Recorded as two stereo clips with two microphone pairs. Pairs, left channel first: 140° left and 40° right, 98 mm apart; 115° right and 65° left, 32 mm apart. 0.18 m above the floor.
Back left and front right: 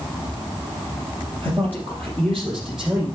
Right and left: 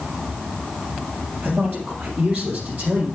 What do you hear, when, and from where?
1.4 s a man speaking: 75° left, 3 m; by 3.1 s 40° left, 3.5 m